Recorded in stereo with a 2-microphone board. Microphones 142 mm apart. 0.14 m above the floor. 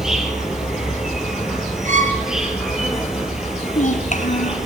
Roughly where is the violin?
Right.